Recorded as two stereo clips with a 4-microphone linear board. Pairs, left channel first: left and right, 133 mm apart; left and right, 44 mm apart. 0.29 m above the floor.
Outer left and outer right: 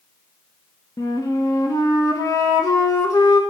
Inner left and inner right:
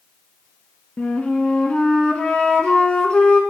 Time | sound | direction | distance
1.0 | a flute | 25° left (ahead or behind) | 0.5 m